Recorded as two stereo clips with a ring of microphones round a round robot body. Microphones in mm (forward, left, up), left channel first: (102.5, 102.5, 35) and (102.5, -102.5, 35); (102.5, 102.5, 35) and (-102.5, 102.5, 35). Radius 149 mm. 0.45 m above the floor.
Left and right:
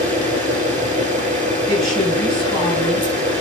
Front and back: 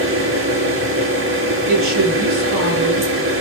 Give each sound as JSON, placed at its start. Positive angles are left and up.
{"t": 0.0, "sound": "an engine running", "azimuth_deg": 170, "distance_m": 6.0}
{"t": 1.7, "sound": "a woman speaking", "azimuth_deg": 180, "distance_m": 7.0}